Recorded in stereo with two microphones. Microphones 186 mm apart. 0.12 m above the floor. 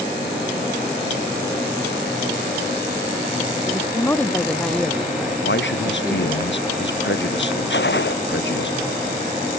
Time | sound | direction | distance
3.6 | a woman speaking | 15° left (ahead or behind) | ?
5.4 | a man speaking | 80° left | ?
7.7 | a gunshot | 75° left (ahead or behind) | ?